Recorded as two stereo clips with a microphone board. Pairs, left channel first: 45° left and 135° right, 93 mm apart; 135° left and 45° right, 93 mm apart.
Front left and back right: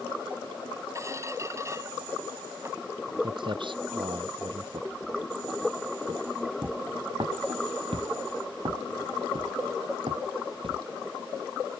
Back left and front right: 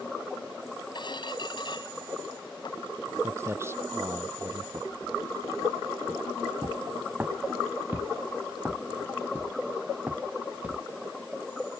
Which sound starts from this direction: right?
Footsteps, at 3.2 s.